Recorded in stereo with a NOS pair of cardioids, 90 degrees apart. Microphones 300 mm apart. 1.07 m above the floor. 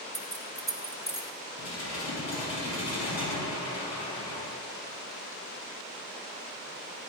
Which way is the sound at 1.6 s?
55° left.